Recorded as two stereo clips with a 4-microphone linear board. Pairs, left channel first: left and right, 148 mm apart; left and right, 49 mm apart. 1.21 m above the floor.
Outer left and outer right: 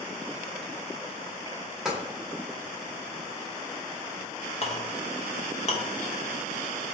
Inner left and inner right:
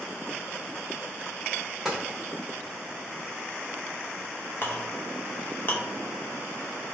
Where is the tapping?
5° right (ahead or behind), 1.1 m.